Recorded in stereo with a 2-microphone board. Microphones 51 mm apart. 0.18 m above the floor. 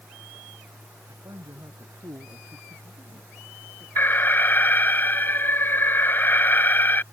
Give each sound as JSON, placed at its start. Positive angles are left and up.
{"t": 1.1, "sound": "a man speaking", "side_deg": -75}
{"t": 4.0, "sound": "an alarm", "side_deg": 40}